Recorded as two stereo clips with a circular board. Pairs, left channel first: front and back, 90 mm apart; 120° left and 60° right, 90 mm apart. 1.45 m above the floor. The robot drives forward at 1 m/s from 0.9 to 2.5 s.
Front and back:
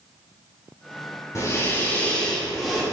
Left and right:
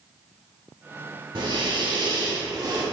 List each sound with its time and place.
1.4 s breathing: 50° right, 1.9 m; by 2.8 s 90° right, 1.6 m